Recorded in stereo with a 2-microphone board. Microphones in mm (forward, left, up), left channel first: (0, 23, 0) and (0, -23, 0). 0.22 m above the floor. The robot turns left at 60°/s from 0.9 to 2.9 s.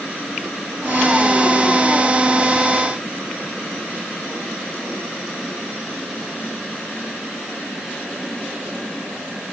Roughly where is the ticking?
I don't hear ticking.